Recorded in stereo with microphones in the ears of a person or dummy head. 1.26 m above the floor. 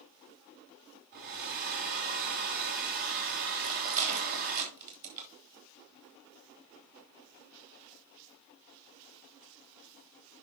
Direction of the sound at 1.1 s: 45° right (ahead or behind).